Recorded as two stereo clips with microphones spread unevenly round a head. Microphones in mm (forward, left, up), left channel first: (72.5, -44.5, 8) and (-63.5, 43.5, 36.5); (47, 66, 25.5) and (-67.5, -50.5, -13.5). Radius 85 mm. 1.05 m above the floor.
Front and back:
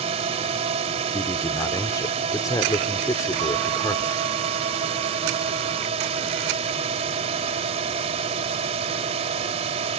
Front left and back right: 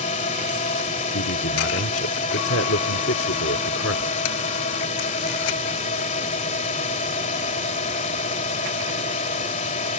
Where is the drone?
95° left.